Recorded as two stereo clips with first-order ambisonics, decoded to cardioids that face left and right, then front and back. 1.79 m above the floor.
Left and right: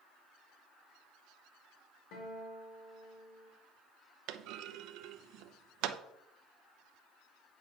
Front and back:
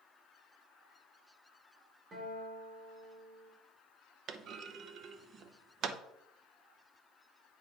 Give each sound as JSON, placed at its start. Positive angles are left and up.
{"t": 2.1, "sound": "a guitar", "azimuth_deg": 115, "distance_m": 3.5}
{"t": 4.3, "sound": "a clunk", "azimuth_deg": -125, "distance_m": 0.7}